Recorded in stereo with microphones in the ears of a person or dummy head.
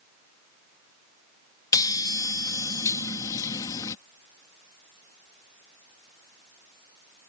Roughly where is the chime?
Left.